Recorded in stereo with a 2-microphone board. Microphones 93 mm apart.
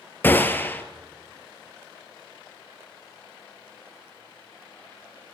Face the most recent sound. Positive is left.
turn(degrees=20)  # may be behind; listen again after turning